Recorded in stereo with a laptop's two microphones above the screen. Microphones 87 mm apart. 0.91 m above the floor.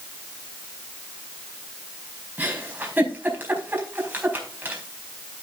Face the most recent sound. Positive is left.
turn(degrees=-20)  # may be behind; listen again after turning